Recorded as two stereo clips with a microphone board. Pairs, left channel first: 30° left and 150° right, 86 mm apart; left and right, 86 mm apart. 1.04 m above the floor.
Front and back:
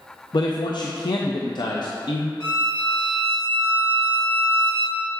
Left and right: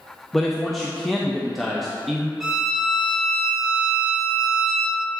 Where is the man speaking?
Straight ahead, 0.5 m.